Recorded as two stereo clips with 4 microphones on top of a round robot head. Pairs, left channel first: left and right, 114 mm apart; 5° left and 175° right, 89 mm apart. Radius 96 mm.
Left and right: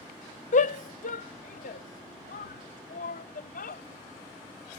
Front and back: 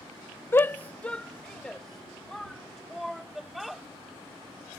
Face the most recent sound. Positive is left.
turn(degrees=95)